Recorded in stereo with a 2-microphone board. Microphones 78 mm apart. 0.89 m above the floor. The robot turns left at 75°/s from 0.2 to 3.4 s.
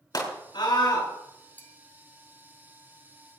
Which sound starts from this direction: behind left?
A scream, at 0.1 s.